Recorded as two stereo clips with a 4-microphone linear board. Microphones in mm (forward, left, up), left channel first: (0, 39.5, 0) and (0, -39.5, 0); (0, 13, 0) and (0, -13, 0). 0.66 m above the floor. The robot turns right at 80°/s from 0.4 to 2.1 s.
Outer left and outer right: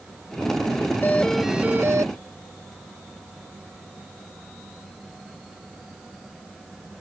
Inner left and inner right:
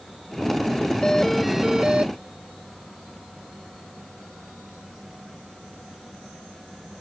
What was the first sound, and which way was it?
A doorbell, 150° left.